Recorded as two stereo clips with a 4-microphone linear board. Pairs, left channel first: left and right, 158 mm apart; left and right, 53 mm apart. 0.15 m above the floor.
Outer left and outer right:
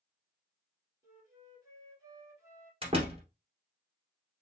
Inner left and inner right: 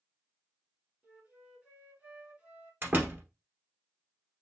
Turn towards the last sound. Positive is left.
turn(degrees=-35)  # may be behind; listen again after turning